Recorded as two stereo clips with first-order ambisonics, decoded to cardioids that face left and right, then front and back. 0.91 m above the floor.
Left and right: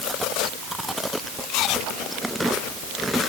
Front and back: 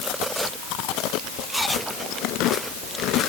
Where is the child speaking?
No child speaking in this recording.